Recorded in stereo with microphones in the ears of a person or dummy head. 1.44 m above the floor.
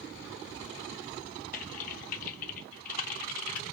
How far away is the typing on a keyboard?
About 0.6 m.